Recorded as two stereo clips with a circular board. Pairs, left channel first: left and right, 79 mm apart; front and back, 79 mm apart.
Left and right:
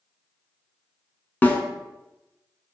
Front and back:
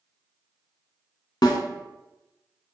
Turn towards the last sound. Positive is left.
turn(degrees=25)